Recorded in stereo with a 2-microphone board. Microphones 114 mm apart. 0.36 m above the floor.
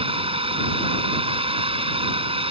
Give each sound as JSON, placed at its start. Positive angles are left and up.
{"t": 0.0, "sound": "a drone", "side_deg": -55}